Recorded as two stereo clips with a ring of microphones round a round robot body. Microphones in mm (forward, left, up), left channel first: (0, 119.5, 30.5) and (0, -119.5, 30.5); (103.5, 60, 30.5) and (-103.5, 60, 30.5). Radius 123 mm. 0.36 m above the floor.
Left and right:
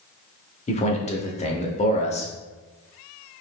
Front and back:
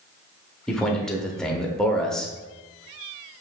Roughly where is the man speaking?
Left.